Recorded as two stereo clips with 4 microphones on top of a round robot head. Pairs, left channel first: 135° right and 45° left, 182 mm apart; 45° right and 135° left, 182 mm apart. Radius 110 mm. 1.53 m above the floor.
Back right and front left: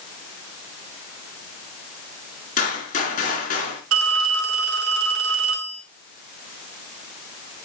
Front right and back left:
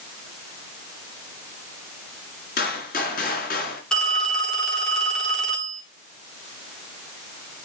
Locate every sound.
2.6 s a gunshot: 90° right, 3 m
3.9 s a phone ringing: 40° left, 2.5 m